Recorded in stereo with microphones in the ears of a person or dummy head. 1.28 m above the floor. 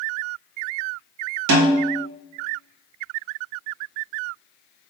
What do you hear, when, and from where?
1.5 s a snare drum: 80° right, 1.0 m